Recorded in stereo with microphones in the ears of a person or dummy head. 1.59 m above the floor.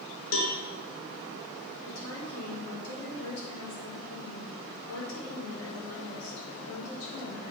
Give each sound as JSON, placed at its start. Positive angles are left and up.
{"t": 0.3, "sound": "a cowbell", "side_deg": 70, "distance_m": 1.8}
{"t": 1.8, "sound": "a woman speaking", "side_deg": 90, "distance_m": 5.5}